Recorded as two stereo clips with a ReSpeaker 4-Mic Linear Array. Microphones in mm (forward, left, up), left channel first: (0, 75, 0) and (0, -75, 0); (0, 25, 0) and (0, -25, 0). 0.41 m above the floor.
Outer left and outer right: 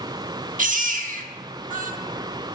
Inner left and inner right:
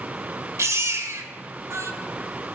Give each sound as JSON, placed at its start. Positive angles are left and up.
{"t": 0.6, "sound": "a baby crying", "side_deg": -55, "distance_m": 0.8}